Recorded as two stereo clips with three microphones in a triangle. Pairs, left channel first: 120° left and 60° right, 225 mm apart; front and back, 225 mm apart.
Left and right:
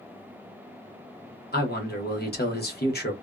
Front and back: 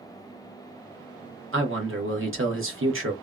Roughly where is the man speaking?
Behind.